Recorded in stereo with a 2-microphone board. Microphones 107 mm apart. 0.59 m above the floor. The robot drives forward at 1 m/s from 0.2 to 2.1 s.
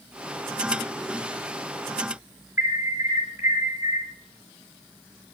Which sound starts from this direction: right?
An alarm, at 2.6 s.